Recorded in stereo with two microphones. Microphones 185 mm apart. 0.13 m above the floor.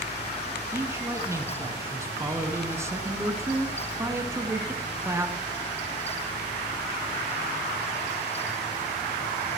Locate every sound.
0.7 s a man speaking: 15° right (ahead or behind), 1.2 m